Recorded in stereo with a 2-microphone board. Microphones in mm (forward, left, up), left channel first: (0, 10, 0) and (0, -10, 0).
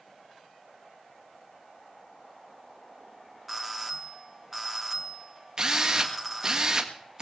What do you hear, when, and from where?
3.5 s a doorbell: 10° right (ahead or behind), 1.8 m
5.6 s a drill: 40° right (ahead or behind), 1.7 m